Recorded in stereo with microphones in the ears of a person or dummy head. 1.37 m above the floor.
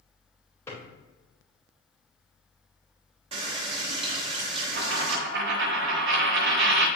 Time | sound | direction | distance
0.7 | a drawer | 20° left (ahead or behind) | 3 m
3.3 | a running tap | 35° right (ahead or behind) | 1.3 m
4.8 | a dropped coin | 70° right (ahead or behind) | 1.7 m